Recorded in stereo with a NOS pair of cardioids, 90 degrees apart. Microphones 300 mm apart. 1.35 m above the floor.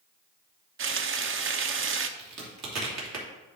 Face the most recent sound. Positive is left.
turn(degrees=-65)